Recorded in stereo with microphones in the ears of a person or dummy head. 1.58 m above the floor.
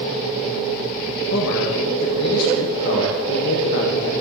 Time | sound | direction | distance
1.3 | a man speaking | 65° left (ahead or behind) | 1.5 m